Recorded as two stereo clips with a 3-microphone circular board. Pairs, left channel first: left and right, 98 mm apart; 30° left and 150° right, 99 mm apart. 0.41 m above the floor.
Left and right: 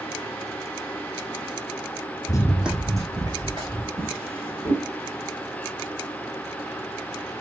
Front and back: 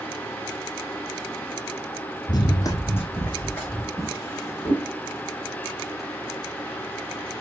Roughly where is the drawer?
Ahead right.